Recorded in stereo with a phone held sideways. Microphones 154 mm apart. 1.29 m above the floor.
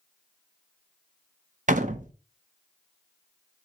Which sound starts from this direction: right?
A door slam, at 1.7 s.